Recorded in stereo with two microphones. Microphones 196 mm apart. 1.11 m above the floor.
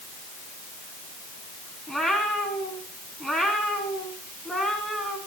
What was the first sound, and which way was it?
A cat meowing, centre (ahead or behind).